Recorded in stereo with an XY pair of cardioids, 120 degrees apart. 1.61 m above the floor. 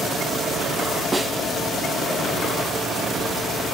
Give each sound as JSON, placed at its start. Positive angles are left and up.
{"t": 1.1, "sound": "a snare drum", "azimuth_deg": -20, "distance_m": 1.0}